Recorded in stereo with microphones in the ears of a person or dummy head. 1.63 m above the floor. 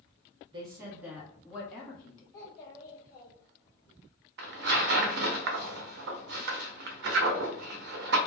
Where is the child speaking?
15° left (ahead or behind), 0.7 m.